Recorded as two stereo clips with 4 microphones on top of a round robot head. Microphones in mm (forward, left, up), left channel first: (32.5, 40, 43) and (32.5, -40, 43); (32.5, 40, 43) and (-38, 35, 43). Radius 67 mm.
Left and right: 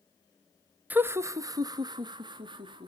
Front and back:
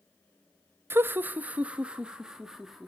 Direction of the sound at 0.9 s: 145° right.